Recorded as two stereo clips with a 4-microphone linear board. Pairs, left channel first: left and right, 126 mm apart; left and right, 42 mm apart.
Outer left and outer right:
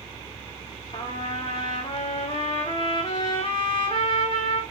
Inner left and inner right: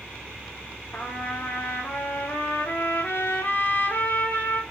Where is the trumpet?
45° left (ahead or behind), 3 m.